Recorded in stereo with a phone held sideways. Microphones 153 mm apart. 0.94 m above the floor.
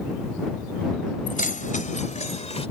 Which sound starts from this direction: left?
Keys jangling, at 1.3 s.